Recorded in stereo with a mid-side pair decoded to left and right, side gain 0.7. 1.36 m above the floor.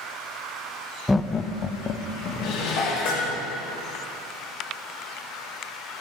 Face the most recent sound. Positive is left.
turn(degrees=70)